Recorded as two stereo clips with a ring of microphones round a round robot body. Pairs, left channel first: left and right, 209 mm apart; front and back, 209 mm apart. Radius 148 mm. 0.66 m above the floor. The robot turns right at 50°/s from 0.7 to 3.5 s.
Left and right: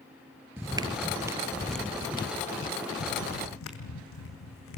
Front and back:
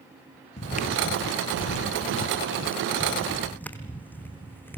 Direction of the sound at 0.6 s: 20° right.